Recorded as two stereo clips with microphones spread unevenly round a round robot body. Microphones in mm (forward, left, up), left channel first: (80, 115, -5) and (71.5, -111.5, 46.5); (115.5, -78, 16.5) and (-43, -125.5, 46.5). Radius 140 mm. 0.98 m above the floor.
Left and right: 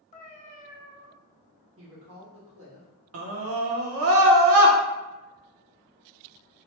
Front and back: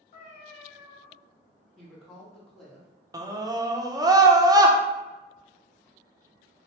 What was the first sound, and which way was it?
A cat meowing, 25° left.